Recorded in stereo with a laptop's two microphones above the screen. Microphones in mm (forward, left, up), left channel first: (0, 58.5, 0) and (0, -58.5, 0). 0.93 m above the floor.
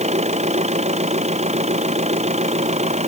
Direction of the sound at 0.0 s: 70° right (ahead or behind).